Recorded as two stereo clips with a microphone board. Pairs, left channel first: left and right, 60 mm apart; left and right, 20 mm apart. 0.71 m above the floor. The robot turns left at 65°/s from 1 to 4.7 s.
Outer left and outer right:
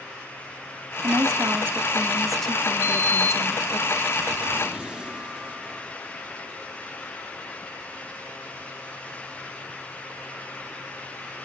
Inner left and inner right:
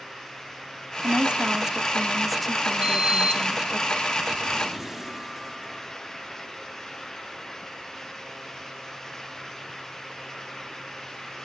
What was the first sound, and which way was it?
A woman speaking, 95° right.